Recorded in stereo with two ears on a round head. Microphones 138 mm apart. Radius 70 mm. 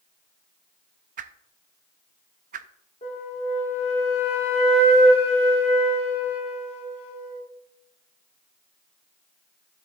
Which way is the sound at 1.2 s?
60° right (ahead or behind).